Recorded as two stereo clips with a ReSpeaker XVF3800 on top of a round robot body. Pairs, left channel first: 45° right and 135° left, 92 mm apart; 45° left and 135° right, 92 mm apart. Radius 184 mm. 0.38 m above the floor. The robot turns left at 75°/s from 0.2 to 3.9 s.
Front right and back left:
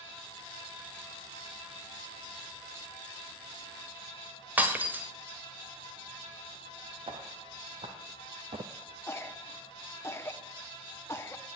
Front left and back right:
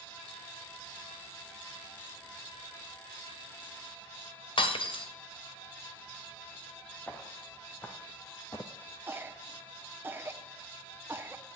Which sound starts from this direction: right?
A cough, at 9.1 s.